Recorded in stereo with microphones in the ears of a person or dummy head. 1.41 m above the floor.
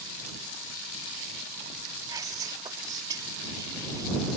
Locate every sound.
2.1 s whispering: 20° right (ahead or behind)